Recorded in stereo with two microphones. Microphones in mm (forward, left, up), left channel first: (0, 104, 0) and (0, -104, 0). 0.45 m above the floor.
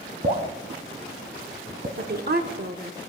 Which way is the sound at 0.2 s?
35° right (ahead or behind).